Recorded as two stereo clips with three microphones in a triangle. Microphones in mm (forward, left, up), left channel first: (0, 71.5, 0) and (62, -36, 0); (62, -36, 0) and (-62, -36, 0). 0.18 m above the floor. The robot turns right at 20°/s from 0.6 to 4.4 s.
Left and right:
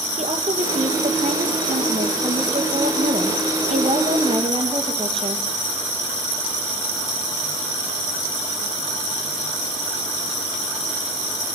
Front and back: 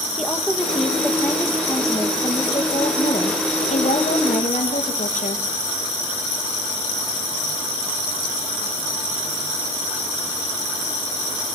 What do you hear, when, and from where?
0.2 s a woman speaking: 90° right, 5.5 m; by 5.4 s 15° right, 5.5 m